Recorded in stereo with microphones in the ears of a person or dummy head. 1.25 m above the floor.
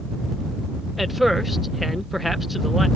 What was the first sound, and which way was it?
A man speaking, centre (ahead or behind).